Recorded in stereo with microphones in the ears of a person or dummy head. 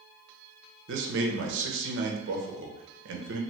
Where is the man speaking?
65° right (ahead or behind), 0.8 m.